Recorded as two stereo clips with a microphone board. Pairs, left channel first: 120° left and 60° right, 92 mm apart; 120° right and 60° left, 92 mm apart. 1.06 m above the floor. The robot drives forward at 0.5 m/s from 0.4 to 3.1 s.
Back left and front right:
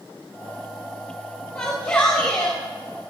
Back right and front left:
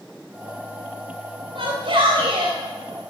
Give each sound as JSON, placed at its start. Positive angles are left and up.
{"t": 1.6, "sound": "a shout", "azimuth_deg": 40, "distance_m": 3.5}